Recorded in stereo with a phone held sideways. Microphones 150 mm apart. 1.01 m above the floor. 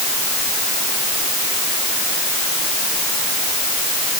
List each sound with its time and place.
Only background noise.